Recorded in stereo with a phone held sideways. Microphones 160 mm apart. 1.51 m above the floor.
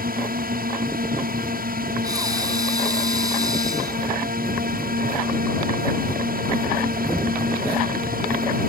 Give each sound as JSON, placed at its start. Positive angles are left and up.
{"t": 0.0, "sound": "a drone", "side_deg": -65}
{"t": 2.0, "sound": "breathing", "side_deg": -25}